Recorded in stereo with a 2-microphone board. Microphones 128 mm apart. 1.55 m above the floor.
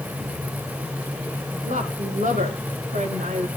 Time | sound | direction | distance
1.6 | a woman speaking | 75° right (ahead or behind) | 4 m